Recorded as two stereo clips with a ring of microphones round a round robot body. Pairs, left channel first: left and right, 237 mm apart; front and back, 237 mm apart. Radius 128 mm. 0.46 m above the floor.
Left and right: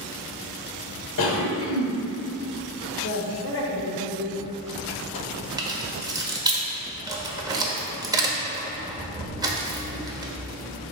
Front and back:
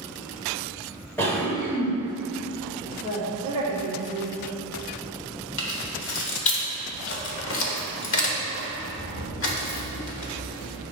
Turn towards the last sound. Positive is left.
turn(degrees=-20)